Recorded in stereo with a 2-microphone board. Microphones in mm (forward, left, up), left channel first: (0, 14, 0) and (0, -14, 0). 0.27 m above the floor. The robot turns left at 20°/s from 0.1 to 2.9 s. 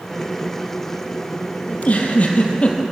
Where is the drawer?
No drawer in this recording.